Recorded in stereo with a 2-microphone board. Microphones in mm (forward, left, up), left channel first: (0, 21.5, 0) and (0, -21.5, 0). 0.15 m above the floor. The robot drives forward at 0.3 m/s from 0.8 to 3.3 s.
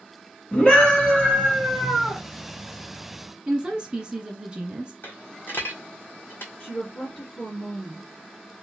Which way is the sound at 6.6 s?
20° left (ahead or behind).